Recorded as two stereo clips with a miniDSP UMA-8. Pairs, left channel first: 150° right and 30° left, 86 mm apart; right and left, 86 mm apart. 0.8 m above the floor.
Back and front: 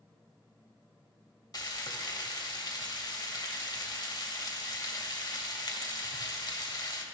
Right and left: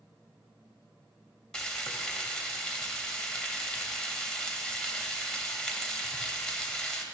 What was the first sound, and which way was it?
Frying, 170° right.